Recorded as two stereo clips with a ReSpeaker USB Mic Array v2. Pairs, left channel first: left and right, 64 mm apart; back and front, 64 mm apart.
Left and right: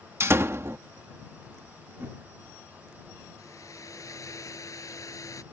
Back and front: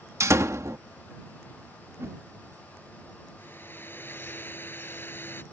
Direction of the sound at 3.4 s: 125° left.